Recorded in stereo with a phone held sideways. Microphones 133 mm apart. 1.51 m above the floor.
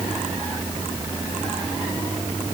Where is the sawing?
No sawing in this recording.